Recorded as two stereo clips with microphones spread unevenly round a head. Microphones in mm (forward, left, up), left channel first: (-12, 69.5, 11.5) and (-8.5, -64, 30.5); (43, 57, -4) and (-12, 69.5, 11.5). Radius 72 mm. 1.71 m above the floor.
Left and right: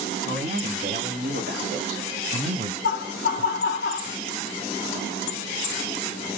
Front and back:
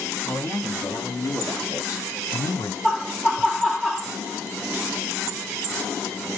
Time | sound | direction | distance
0.2 | a man speaking | 70° right | 2.5 m
2.8 | laughter | 90° left | 0.8 m